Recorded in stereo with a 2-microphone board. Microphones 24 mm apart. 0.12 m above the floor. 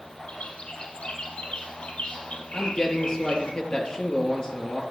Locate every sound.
0.3 s a bird: 60° left (ahead or behind), 2.5 m
2.5 s a man speaking: 40° left (ahead or behind), 3 m